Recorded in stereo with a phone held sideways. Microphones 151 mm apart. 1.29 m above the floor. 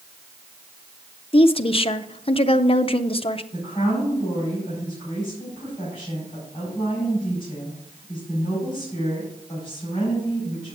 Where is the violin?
I don't hear a violin.